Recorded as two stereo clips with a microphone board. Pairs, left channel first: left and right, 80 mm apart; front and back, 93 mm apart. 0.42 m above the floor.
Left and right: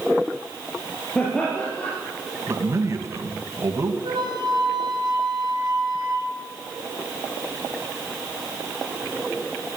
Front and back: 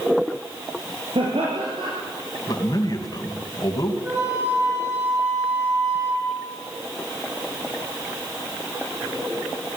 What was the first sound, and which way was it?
Laughter, 165° left.